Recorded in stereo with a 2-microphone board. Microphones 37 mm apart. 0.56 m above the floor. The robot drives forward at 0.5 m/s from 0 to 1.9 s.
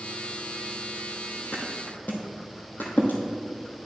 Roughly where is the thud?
Left.